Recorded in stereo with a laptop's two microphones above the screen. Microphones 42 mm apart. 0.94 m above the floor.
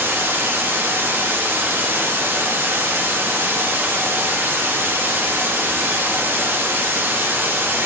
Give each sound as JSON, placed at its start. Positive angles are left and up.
{"t": 0.0, "sound": "running water", "side_deg": -65, "distance_m": 1.3}